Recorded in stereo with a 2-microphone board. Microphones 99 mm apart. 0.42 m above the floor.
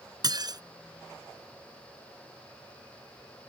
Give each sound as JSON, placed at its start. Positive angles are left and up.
{"t": 0.2, "sound": "dishes clattering", "side_deg": -40}